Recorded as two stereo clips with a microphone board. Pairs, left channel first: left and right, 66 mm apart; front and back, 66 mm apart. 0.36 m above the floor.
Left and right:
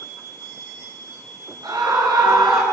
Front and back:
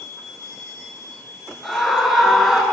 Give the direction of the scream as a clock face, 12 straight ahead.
3 o'clock.